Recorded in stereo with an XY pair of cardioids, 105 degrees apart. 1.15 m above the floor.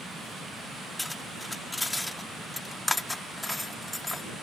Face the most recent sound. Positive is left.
turn(degrees=10)